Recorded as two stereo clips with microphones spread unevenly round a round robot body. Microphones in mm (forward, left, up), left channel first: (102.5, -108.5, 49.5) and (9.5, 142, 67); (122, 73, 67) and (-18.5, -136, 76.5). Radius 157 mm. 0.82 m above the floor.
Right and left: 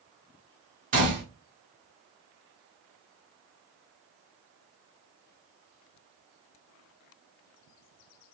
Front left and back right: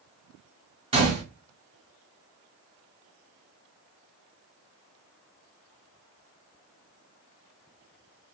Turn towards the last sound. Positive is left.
turn(degrees=170)